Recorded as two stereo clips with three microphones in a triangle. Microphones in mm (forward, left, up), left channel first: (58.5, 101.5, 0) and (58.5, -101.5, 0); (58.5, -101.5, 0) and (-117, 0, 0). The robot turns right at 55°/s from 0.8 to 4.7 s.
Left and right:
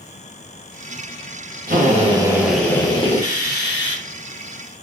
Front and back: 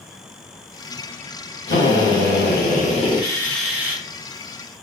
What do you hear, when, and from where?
1.7 s a drill: 50° right, 1.0 m; by 4.0 s 80° left, 1.0 m